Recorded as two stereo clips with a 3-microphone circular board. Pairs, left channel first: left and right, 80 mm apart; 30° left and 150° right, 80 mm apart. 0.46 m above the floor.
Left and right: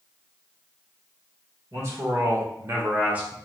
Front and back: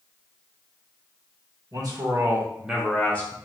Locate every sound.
1.7 s a man speaking: 135° right, 1.3 m; by 3.4 s 15° right, 1.0 m